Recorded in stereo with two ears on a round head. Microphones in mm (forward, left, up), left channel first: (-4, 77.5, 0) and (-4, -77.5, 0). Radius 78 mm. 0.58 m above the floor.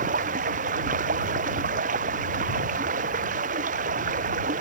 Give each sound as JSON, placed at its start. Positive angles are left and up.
{"t": 0.0, "sound": "running water", "side_deg": -50}